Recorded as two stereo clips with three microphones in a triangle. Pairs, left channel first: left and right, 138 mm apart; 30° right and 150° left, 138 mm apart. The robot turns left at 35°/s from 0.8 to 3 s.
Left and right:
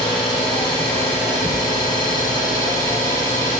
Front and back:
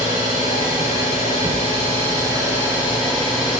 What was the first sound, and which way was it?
An engine running, 140° left.